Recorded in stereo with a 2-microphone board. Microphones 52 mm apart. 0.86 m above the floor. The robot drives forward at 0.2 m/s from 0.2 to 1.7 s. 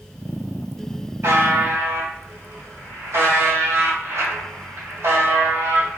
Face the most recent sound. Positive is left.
turn(degrees=-65)  # may be behind; listen again after turning